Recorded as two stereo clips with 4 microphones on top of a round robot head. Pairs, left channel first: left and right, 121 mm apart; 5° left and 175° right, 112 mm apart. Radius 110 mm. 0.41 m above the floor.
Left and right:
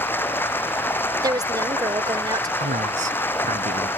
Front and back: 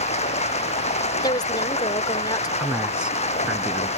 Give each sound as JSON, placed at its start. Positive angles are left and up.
{"t": 0.0, "sound": "running water", "azimuth_deg": 20}
{"t": 1.2, "sound": "a woman speaking", "azimuth_deg": -40}
{"t": 2.6, "sound": "a man speaking", "azimuth_deg": -90}